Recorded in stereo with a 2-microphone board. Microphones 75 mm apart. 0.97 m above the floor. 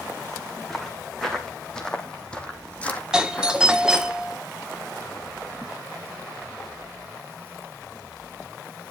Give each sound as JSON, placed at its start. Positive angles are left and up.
{"t": 0.7, "sound": "footsteps", "side_deg": 5, "distance_m": 4.0}
{"t": 3.1, "sound": "a doorbell", "side_deg": -10, "distance_m": 1.3}